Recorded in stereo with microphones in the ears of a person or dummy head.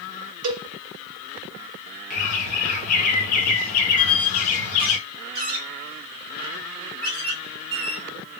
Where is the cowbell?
70° right (ahead or behind), 0.9 m.